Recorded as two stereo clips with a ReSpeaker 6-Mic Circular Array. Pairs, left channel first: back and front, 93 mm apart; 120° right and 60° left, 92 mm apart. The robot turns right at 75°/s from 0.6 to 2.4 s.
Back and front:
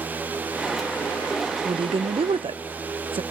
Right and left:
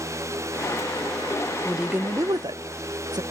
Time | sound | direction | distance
1.6 | a woman speaking | 35° right | 0.7 m